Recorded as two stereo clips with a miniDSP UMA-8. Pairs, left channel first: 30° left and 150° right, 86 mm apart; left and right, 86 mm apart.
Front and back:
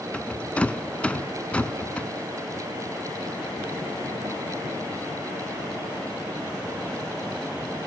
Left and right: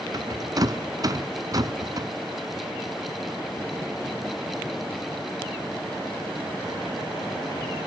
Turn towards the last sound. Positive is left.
turn(degrees=-45)